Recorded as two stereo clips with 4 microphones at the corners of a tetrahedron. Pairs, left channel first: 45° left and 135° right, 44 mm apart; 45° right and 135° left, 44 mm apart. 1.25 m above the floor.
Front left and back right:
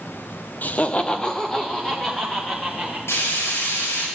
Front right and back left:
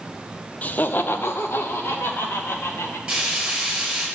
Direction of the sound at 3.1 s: 60° left.